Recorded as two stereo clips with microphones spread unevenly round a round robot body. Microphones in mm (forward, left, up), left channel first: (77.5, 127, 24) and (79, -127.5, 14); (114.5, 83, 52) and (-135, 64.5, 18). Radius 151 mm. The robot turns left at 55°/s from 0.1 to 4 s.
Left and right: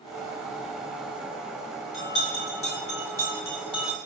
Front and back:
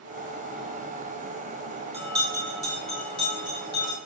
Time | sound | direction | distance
1.9 | a bell | 120° left | 6 m